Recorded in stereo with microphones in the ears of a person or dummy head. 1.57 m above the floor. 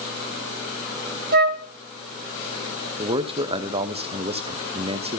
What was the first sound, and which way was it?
A flute, 50° right (ahead or behind).